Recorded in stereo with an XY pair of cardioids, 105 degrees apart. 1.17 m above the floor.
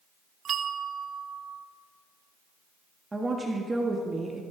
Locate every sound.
0.5 s a bell: 55° right, 0.6 m
3.1 s a woman speaking: 20° right, 1.5 m